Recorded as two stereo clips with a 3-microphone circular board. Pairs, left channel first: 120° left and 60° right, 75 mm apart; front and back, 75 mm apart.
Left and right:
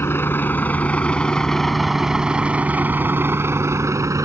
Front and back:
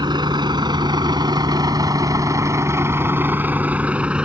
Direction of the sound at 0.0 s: 175° left.